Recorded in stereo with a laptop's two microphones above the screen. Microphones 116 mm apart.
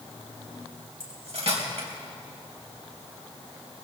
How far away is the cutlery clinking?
About 3 m.